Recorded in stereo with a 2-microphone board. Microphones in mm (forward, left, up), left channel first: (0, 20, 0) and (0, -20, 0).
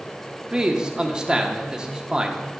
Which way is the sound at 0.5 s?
20° right (ahead or behind).